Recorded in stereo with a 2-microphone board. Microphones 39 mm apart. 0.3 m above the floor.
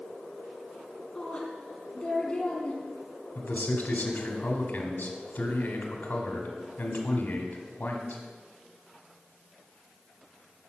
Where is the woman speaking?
25° left (ahead or behind), 2.5 m.